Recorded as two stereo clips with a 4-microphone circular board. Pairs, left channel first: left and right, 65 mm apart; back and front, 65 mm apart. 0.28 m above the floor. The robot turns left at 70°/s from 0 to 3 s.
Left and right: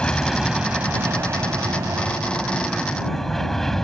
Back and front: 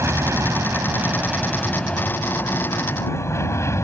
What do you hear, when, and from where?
0.0 s an aircraft: 20° left; by 3.8 s 170° left